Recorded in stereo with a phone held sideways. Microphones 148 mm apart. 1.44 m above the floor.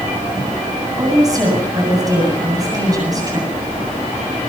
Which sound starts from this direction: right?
A woman speaking, at 1.0 s.